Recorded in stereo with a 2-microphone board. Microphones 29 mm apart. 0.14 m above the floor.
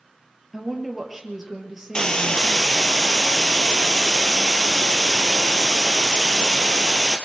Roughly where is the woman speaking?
Centre.